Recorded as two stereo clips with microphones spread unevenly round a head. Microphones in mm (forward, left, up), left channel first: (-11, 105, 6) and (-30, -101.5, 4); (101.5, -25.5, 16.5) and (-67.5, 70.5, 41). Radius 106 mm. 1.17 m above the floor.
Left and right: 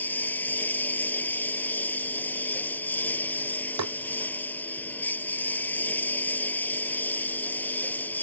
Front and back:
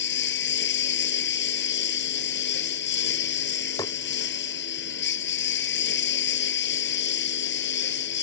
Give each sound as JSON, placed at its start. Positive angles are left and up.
{"t": 0.0, "sound": "a lawn mower", "azimuth_deg": 5}
{"t": 3.8, "sound": "tapping", "azimuth_deg": -105}